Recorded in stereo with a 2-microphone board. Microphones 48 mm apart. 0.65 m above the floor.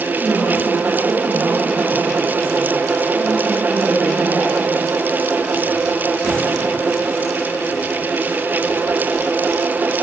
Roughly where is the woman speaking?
Right.